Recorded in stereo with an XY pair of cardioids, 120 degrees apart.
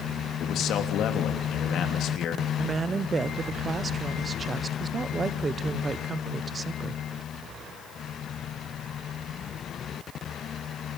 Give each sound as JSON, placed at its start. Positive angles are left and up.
{"t": 0.4, "sound": "a man speaking", "azimuth_deg": 65, "distance_m": 3.0}
{"t": 2.6, "sound": "a woman speaking", "azimuth_deg": -30, "distance_m": 1.1}